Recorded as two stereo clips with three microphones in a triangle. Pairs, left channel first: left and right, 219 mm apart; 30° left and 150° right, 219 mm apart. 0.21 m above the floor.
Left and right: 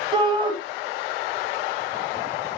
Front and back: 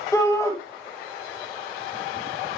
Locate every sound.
0.1 s a shout: 40° right, 1.6 m